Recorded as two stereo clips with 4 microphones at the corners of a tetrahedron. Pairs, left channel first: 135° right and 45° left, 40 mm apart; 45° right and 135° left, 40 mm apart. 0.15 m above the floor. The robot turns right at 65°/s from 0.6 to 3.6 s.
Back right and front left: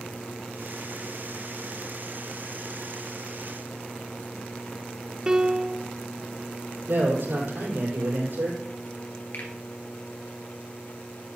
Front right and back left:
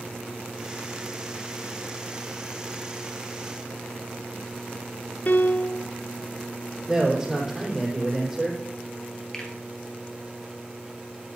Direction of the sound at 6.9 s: 55° left.